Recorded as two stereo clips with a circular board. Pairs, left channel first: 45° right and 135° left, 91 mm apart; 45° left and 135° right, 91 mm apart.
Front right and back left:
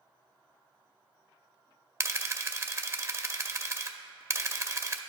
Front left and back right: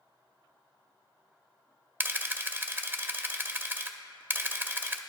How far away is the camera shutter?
About 0.6 m.